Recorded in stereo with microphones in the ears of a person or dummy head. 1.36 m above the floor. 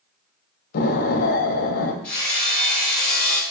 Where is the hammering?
10° left (ahead or behind), 5 m.